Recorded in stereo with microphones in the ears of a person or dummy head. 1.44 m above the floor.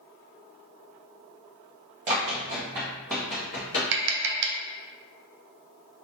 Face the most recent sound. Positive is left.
turn(degrees=-65)  # may be behind; listen again after turning